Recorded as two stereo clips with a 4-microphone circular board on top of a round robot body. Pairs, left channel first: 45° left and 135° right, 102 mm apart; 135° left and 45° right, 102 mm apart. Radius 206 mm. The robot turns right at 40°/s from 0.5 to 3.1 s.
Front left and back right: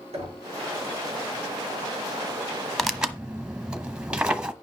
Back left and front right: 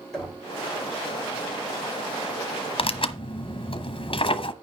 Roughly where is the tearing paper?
Behind left.